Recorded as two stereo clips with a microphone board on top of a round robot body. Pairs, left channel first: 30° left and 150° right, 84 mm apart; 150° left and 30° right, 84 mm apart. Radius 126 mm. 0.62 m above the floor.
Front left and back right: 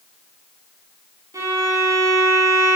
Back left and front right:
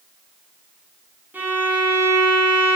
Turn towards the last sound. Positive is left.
turn(degrees=-100)